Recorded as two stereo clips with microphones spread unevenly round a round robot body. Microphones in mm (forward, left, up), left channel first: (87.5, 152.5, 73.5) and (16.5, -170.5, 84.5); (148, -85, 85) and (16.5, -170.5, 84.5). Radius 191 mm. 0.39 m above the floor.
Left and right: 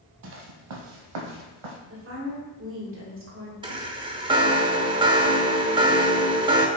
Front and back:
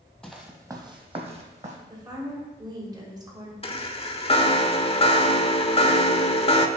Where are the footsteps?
55° right, 0.8 m; by 1.8 s 105° right, 1.4 m.